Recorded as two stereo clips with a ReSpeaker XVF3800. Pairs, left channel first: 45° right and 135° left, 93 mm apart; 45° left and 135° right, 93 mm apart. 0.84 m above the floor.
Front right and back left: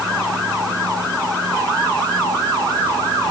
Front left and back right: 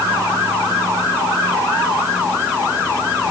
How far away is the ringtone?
I don't hear a ringtone.